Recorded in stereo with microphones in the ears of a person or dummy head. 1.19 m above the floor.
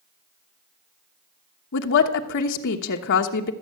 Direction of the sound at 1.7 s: 60° left (ahead or behind).